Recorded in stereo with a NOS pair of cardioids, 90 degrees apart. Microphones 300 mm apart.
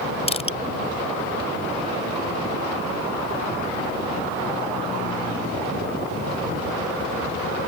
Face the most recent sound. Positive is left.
turn(degrees=20)